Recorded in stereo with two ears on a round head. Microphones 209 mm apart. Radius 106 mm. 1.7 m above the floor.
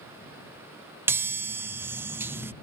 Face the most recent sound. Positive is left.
turn(degrees=-10)  # may be behind; listen again after turning